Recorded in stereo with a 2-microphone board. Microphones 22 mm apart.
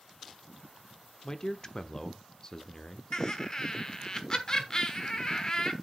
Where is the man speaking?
30° left (ahead or behind), 0.9 m.